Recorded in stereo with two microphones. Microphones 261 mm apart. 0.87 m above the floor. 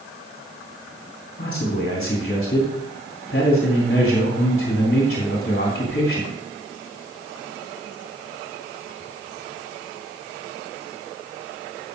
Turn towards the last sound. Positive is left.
turn(degrees=40)  # may be behind; listen again after turning